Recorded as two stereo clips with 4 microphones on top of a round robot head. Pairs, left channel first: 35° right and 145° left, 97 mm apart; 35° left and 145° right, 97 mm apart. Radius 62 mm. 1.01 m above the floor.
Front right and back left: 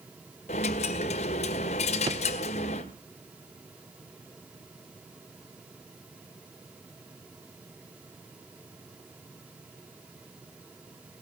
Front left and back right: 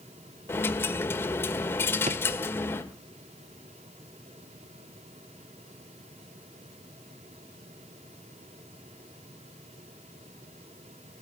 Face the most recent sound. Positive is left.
turn(degrees=-165)